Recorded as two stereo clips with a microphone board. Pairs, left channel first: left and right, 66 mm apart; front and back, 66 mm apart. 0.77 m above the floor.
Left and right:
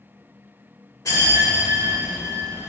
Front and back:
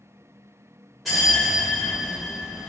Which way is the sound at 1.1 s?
90° left.